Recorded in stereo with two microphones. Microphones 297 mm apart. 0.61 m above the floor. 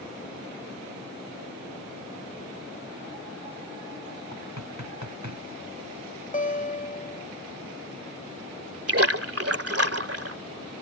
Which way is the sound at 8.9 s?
50° right (ahead or behind).